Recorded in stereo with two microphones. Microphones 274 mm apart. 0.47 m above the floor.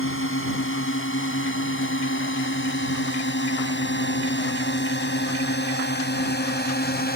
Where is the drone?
50° left (ahead or behind); by 7.2 s 35° left (ahead or behind).